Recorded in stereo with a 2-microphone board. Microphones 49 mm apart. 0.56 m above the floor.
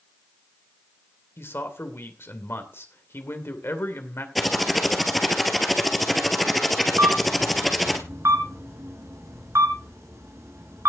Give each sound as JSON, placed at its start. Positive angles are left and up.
{"t": 1.4, "sound": "a man speaking", "side_deg": 50, "distance_m": 2.0}
{"t": 4.3, "sound": "typing on a keyboard", "side_deg": 5, "distance_m": 1.8}
{"t": 7.0, "sound": "a camera shutter", "side_deg": -75, "distance_m": 4.0}